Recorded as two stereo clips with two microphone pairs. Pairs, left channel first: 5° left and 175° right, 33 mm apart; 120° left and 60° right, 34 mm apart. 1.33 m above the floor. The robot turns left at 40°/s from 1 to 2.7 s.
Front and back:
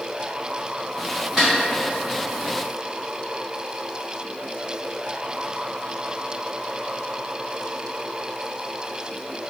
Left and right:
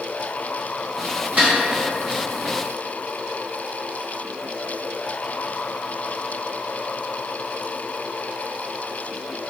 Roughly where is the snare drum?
Right.